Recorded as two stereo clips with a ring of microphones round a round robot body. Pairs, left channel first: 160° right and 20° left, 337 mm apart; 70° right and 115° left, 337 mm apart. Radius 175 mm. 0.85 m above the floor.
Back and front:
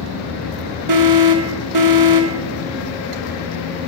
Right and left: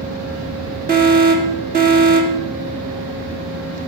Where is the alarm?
50° left, 1.5 m.